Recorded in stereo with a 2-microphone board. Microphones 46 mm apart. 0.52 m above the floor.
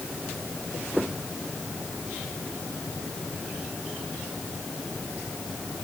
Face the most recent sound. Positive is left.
No sound to turn to.